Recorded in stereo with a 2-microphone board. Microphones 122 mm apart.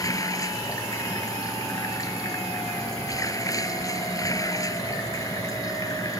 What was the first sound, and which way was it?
Running water, 30° left (ahead or behind).